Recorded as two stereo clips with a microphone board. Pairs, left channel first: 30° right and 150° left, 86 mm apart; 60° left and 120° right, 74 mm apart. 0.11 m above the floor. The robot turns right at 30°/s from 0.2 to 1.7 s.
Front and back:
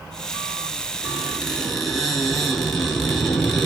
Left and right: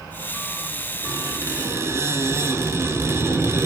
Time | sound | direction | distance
1.0 | a squeak | 130° right | 1.2 m